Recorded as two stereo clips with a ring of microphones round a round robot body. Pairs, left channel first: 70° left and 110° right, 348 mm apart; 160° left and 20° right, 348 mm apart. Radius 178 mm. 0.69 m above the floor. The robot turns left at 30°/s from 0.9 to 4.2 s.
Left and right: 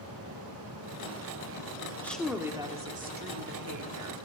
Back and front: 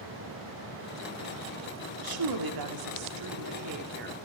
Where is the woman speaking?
15° right, 2.0 m; by 4.2 s 80° right, 2.0 m.